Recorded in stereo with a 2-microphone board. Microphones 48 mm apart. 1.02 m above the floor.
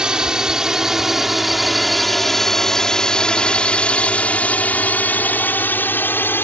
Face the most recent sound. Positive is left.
turn(degrees=45)  # may be behind; listen again after turning